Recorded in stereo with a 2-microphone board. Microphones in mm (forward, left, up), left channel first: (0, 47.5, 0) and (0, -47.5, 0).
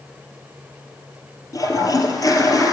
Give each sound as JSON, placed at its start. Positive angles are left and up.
{"t": 1.5, "sound": "a toilet flushing", "side_deg": 40, "distance_m": 1.8}